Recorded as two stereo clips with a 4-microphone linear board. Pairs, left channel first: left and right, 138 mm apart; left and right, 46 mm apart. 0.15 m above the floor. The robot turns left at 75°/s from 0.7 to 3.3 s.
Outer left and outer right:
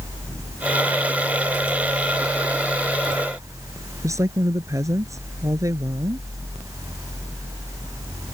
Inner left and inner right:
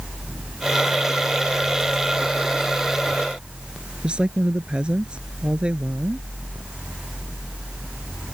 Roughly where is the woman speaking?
Right.